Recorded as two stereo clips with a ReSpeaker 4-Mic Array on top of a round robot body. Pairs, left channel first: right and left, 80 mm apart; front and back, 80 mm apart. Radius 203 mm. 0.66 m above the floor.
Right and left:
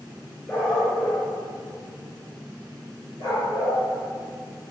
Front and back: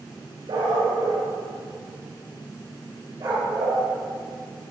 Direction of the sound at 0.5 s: 150° right.